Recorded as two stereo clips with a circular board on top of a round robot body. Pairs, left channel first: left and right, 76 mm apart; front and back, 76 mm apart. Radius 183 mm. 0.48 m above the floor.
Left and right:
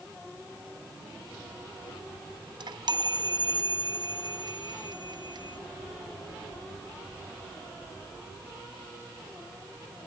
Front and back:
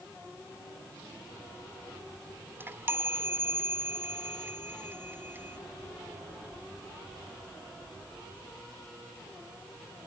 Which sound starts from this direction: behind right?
A chime, at 2.6 s.